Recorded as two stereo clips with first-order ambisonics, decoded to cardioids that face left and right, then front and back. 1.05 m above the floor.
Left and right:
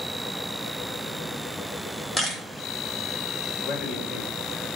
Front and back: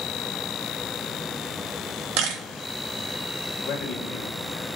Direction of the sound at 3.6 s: 35° left.